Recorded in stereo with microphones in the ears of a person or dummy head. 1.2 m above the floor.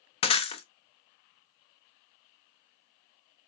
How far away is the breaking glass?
About 0.7 m.